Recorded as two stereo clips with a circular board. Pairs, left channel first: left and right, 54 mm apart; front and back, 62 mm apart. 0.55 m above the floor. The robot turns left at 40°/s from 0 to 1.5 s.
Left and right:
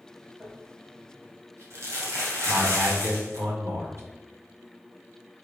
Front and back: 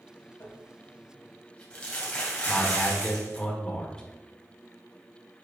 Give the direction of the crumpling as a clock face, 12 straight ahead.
1 o'clock.